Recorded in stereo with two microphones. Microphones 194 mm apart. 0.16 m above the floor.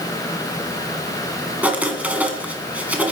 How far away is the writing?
About 1.8 m.